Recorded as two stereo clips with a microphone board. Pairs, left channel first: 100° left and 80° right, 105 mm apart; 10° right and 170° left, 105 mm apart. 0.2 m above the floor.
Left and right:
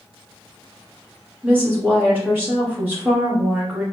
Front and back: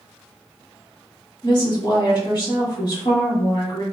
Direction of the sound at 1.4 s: 15° right.